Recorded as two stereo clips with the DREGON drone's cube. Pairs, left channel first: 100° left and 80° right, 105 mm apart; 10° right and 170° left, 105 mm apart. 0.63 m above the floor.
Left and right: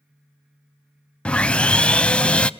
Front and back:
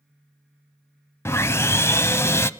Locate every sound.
1.2 s sawing: 25° left, 0.5 m